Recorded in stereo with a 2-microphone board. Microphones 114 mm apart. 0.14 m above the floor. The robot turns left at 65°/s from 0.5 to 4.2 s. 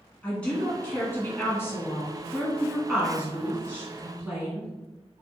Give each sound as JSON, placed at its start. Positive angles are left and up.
{"t": 0.2, "sound": "a woman speaking", "side_deg": 10, "distance_m": 1.1}